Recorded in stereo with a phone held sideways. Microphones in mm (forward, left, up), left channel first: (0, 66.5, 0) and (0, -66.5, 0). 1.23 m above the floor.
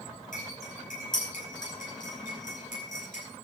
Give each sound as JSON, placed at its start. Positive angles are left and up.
{"t": 0.3, "sound": "cutlery clinking", "side_deg": 80, "distance_m": 8.0}